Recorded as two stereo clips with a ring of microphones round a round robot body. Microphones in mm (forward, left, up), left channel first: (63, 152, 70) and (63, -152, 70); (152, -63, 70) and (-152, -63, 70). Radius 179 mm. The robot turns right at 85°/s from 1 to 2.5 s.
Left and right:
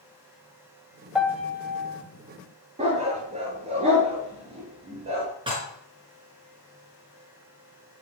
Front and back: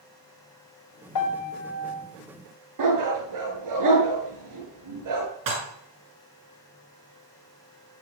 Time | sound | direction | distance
1.1 | a piano | 5° right | 2.0 m
2.8 | a dog barking | 160° right | 4 m
5.5 | dishes clattering | 165° right | 5 m